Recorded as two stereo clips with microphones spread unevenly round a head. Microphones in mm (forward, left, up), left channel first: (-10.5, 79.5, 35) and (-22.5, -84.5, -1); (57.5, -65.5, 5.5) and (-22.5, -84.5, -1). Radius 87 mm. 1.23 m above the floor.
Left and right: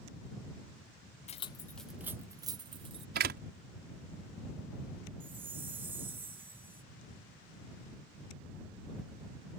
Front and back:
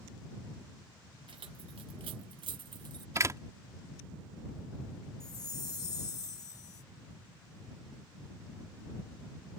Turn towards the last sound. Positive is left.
turn(degrees=-10)